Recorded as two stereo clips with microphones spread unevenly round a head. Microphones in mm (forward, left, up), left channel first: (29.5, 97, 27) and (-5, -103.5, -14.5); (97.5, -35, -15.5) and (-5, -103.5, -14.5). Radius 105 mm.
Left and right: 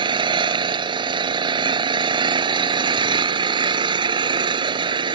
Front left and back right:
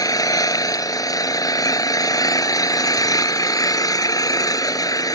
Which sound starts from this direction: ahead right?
An engine running, at 0.0 s.